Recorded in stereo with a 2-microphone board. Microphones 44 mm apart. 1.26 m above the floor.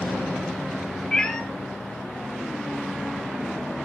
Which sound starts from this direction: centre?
A cat meowing, at 1.1 s.